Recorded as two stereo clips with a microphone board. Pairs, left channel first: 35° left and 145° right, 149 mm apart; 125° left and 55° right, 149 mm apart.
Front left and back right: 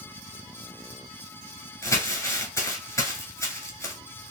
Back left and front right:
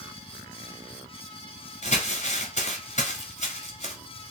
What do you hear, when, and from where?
1.8 s crumpling: 100° left, 1.3 m